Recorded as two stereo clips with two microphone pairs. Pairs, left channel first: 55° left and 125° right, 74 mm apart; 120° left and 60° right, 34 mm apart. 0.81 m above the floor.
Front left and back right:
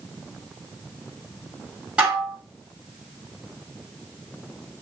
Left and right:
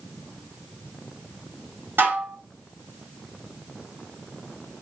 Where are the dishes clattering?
50° right, 1.2 m.